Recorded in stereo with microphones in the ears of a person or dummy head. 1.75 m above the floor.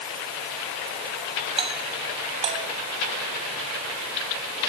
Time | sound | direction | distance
1.6 | a doorbell | 30° right (ahead or behind) | ?